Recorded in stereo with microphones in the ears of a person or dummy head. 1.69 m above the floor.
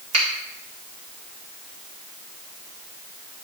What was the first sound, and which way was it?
A finger snap, 35° right (ahead or behind).